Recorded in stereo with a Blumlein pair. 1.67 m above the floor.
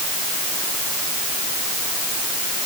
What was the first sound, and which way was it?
Only background noise.